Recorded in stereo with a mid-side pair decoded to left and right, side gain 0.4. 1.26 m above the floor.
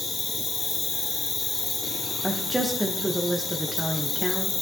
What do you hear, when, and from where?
0.0 s an insect: 55° left, 1.4 m
2.2 s a woman speaking: 5° right, 1.0 m